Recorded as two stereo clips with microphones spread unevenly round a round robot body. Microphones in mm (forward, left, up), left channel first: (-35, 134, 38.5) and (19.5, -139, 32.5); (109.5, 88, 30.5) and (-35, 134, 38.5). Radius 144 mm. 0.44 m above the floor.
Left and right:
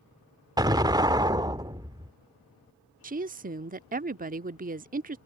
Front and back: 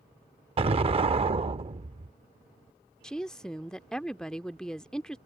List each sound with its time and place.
0.6 s an explosion: 150° right
3.0 s a woman speaking: 95° right